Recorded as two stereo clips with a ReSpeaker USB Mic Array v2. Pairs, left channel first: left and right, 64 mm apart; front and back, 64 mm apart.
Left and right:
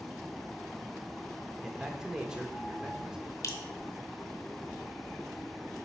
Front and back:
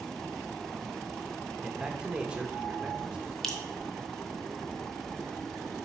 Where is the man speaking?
145° right, 0.7 m.